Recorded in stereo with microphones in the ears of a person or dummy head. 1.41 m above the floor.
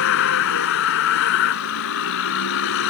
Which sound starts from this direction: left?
A vehicle, at 0.0 s.